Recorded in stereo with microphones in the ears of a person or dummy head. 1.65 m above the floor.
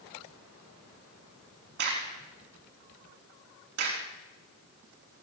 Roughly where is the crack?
Right.